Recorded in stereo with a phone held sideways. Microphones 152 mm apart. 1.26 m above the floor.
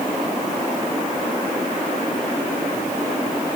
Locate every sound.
Only background noise.